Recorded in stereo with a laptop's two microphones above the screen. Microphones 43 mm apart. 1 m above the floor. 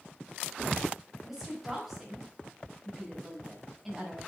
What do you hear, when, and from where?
1.2 s a woman speaking: centre (ahead or behind), 5.5 m